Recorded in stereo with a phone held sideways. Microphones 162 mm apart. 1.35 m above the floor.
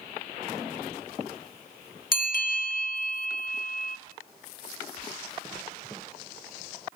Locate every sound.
2.1 s a bell: 65° left (ahead or behind), 2 m